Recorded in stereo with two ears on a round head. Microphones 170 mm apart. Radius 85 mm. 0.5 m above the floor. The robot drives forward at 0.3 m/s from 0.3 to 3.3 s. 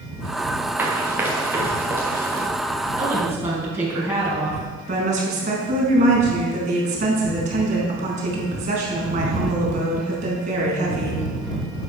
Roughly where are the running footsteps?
Centre.